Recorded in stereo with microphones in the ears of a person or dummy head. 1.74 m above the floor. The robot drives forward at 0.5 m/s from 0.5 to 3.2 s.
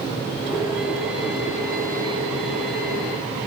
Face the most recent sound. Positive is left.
No sound to turn to.